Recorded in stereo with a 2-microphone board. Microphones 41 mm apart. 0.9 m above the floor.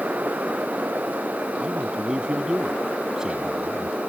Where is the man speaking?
20° right (ahead or behind); by 4.0 s 15° right (ahead or behind).